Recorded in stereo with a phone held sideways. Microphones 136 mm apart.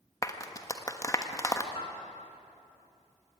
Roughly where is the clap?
Left.